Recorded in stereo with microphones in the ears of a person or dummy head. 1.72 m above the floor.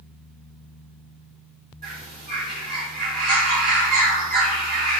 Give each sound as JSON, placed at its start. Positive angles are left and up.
{"t": 1.8, "sound": "a bird", "side_deg": -35, "distance_m": 0.8}